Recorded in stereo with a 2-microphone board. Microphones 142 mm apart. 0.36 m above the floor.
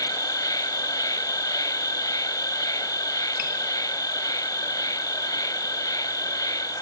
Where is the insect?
25° left (ahead or behind), 1.1 m.